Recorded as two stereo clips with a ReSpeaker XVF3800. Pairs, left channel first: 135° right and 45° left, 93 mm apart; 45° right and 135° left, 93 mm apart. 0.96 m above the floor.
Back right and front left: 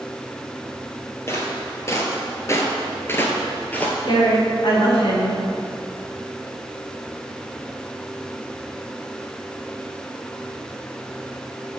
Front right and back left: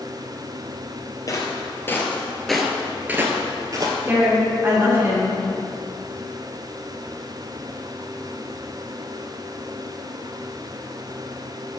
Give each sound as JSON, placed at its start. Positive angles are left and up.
{"t": 1.3, "sound": "footsteps", "azimuth_deg": -80, "distance_m": 1.4}
{"t": 4.1, "sound": "a woman speaking", "azimuth_deg": -160, "distance_m": 2.5}